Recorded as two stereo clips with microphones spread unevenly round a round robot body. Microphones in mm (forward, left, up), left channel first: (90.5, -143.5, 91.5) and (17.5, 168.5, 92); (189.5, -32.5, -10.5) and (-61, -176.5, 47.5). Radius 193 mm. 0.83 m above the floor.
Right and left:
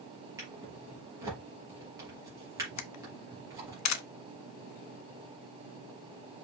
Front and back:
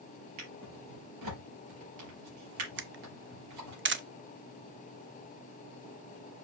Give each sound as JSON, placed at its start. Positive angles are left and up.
{"t": 0.4, "sound": "a drawer", "azimuth_deg": -175, "distance_m": 4.0}
{"t": 2.8, "sound": "a camera shutter", "azimuth_deg": -95, "distance_m": 0.9}